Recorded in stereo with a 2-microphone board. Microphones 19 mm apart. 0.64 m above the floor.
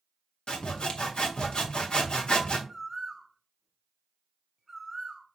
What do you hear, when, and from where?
0.5 s sawing: 50° left (ahead or behind), 0.7 m
2.7 s a bird: 20° right (ahead or behind), 0.6 m